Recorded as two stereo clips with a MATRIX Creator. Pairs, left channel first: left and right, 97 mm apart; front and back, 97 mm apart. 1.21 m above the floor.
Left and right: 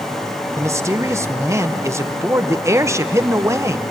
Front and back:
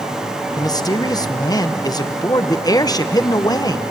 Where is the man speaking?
35° right, 1.0 m.